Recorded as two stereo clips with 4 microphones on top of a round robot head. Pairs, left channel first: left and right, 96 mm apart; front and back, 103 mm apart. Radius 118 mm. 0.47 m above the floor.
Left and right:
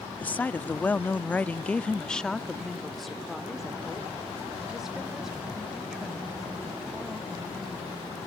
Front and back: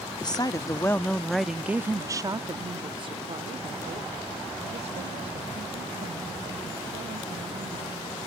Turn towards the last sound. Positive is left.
turn(degrees=-175)